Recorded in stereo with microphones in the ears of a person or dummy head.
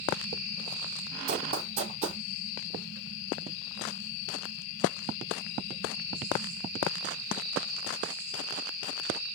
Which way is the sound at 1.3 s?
35° right (ahead or behind).